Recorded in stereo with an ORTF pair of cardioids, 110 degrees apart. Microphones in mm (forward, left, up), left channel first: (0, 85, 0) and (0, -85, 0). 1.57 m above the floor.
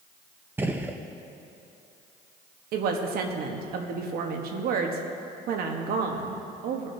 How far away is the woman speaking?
About 1.3 m.